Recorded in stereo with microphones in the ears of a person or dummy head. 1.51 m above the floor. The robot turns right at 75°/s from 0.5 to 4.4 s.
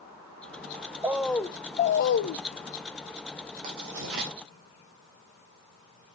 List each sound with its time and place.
1.0 s a bird: 15° right, 0.6 m; by 2.4 s 90° left, 0.6 m
3.6 s writing: 40° right (ahead or behind), 3 m; by 4.3 s 70° right (ahead or behind), 3 m